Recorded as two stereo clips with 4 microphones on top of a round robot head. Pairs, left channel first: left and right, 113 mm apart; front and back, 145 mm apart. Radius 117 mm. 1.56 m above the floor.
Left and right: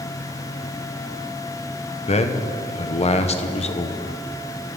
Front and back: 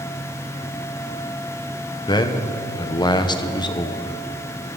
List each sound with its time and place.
2.1 s a man speaking: 60° left, 1.2 m